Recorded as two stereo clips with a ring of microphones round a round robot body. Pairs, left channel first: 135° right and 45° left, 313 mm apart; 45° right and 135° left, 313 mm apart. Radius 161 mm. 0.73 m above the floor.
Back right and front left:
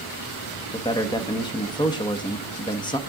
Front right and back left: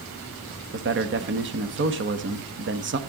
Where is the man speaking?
155° left, 1.3 m.